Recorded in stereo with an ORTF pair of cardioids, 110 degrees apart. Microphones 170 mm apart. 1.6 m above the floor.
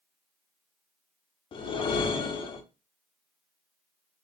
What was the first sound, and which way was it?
A whoosh, 30° left.